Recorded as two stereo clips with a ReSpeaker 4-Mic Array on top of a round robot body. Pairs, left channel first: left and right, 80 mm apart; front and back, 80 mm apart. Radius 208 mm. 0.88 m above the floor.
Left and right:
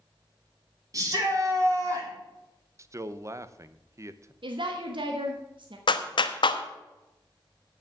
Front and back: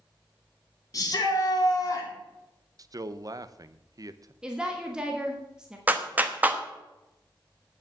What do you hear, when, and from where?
0.9 s a shout: 45° right, 3 m
2.8 s a man speaking: 140° right, 0.9 m
4.4 s a woman speaking: 100° right, 1.5 m
5.9 s a clap: 110° left, 1.1 m